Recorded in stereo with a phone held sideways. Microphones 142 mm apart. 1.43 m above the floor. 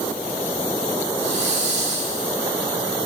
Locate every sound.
1.2 s a hiss: 45° right (ahead or behind), 1.9 m